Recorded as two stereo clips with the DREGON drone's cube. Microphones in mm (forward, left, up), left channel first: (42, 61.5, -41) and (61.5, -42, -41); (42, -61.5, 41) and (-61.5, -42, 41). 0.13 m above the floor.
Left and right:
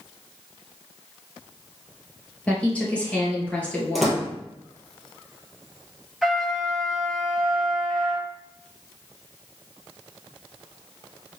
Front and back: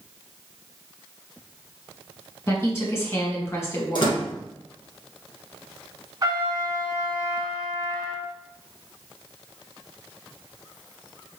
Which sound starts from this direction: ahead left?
A woman speaking, at 2.5 s.